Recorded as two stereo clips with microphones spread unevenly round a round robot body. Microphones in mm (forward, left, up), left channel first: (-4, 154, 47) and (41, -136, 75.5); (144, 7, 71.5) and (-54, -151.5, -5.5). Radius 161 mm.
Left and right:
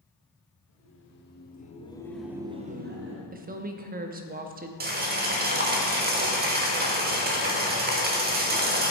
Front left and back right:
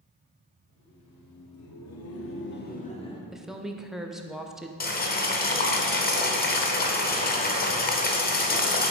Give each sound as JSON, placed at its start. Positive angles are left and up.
{"t": 0.7, "sound": "laughter", "azimuth_deg": 65, "distance_m": 2.0}
{"t": 3.3, "sound": "a woman speaking", "azimuth_deg": -105, "distance_m": 0.8}
{"t": 4.8, "sound": "boiling", "azimuth_deg": -20, "distance_m": 1.4}